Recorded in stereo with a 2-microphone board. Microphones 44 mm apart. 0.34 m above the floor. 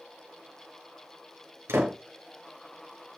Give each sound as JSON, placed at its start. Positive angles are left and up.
{"t": 1.7, "sound": "a door slam", "side_deg": -75, "distance_m": 4.5}